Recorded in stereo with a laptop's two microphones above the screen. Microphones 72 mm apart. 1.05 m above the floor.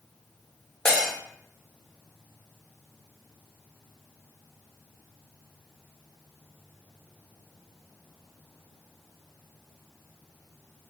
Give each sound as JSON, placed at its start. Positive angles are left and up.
{"t": 0.8, "sound": "breaking glass", "side_deg": 10, "distance_m": 0.8}